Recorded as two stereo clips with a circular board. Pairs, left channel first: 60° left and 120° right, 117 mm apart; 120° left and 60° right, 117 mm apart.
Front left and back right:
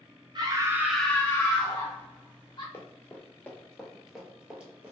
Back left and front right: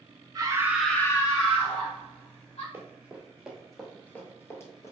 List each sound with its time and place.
0.3 s a scream: 95° right, 0.6 m; by 2.6 s 105° left, 1.4 m
2.7 s running footsteps: straight ahead, 1.0 m; by 4.9 s 165° left, 1.0 m